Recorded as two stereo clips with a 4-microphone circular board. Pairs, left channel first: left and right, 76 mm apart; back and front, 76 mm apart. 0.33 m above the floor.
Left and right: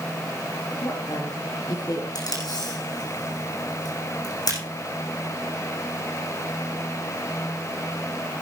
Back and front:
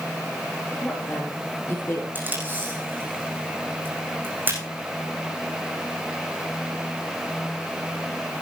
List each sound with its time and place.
0.8 s a woman speaking: 115° left, 5 m; by 2.0 s 125° left, 5 m
2.1 s tape being pulled: 65° left, 8.5 m